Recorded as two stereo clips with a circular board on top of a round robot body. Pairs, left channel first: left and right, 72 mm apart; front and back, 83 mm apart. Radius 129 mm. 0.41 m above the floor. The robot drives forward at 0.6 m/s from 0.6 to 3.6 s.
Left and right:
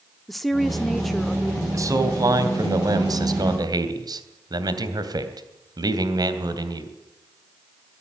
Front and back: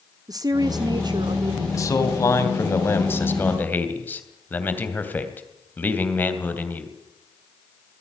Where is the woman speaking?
Straight behind, 1.1 m.